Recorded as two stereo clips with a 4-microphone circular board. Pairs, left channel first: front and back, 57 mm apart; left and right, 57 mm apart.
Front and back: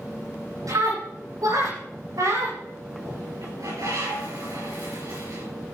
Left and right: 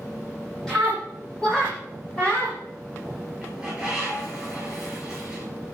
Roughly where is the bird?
Behind.